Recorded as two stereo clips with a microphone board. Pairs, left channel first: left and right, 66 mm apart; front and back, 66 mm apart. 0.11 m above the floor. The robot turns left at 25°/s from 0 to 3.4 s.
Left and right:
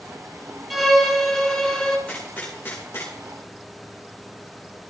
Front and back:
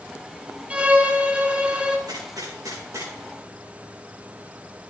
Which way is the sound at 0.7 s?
Straight behind.